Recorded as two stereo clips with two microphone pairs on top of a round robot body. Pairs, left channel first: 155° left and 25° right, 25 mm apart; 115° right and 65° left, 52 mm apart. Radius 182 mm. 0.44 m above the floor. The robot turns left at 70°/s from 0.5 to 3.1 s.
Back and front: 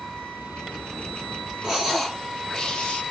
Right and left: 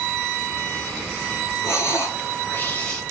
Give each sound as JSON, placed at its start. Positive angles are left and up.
{"t": 1.6, "sound": "breathing", "azimuth_deg": -100, "distance_m": 2.5}